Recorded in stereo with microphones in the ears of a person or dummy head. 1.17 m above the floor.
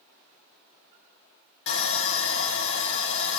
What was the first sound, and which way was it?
Sawing, 70° left (ahead or behind).